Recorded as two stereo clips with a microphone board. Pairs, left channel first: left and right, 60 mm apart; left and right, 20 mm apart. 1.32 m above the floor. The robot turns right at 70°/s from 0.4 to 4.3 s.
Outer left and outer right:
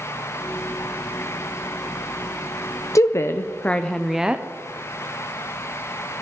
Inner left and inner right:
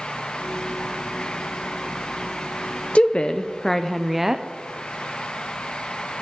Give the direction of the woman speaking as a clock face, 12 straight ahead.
9 o'clock.